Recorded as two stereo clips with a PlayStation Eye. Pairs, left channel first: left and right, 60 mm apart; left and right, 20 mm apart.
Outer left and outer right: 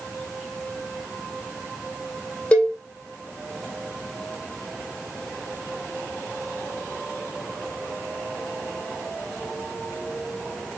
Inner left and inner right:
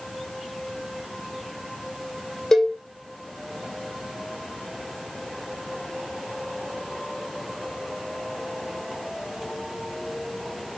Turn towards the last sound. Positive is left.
turn(degrees=20)  # may be behind; listen again after turning